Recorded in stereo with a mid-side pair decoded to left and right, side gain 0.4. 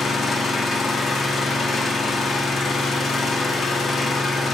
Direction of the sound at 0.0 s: 55° left.